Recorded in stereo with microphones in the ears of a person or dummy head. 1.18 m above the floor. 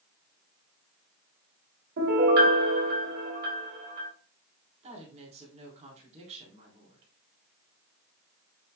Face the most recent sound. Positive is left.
turn(degrees=-35)  # may be behind; listen again after turning